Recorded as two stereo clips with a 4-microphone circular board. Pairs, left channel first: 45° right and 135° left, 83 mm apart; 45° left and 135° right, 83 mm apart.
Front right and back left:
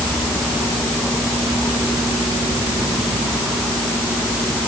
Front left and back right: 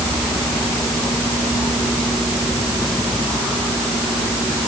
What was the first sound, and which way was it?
Only background noise.